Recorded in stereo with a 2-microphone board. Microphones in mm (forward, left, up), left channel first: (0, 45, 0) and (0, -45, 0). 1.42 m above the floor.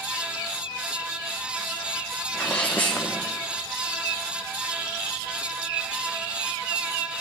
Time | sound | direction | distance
2.3 | a sneeze | 15° left (ahead or behind) | 1.1 m